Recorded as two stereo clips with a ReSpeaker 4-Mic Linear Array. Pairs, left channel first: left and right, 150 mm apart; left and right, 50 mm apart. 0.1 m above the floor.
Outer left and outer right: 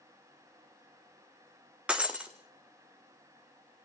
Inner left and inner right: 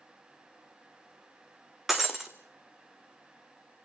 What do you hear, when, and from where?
1.9 s breaking glass: 5° right (ahead or behind), 2 m